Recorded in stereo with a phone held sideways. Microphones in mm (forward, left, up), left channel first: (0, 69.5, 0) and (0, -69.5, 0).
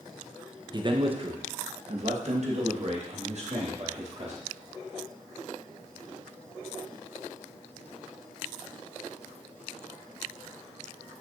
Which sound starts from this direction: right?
A man speaking, at 0.7 s.